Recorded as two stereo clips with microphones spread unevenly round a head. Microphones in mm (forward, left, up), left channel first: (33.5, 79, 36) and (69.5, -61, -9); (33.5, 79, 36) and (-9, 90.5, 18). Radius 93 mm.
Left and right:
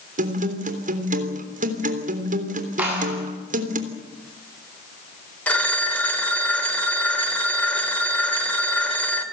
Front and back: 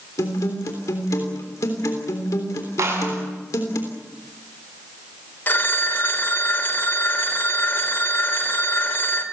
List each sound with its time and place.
0.2 s a guitar: 45° right, 3 m
2.8 s a clap: 160° right, 8 m
5.5 s a phone ringing: 25° left, 3 m